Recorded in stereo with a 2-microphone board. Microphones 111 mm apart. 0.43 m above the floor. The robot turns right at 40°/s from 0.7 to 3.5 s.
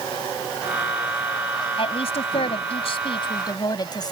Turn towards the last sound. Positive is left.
turn(degrees=135)